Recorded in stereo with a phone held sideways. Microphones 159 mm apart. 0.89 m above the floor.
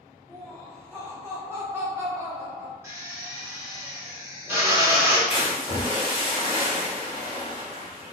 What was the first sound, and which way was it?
Laughter, 15° right (ahead or behind).